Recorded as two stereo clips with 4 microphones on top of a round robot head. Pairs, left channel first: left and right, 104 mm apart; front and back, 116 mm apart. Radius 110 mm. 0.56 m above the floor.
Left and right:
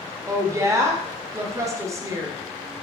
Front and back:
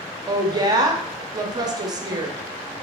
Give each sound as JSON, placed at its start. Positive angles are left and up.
{"t": 0.3, "sound": "a woman speaking", "azimuth_deg": -140, "distance_m": 0.8}